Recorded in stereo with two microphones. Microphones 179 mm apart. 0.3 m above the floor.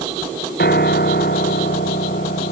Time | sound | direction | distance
0.6 | a piano | 65° left (ahead or behind) | ?